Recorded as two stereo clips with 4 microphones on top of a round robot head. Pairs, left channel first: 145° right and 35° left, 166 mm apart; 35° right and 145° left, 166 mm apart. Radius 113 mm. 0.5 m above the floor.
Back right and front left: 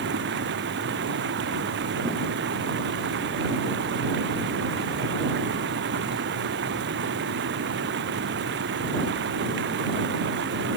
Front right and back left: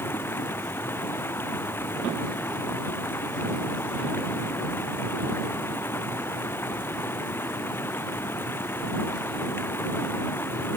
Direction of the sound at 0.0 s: 45° left.